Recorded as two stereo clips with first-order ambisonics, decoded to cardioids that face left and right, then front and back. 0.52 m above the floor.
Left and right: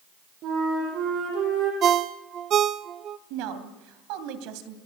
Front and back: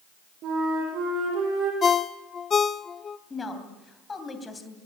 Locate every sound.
0.4 s a flute: 135° right, 8 m
1.8 s a ringtone: 55° right, 0.6 m
3.3 s a woman speaking: 75° right, 2.5 m